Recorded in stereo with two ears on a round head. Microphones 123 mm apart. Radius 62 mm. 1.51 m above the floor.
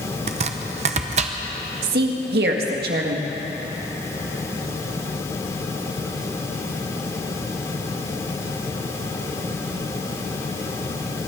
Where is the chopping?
45° right (ahead or behind), 0.8 m.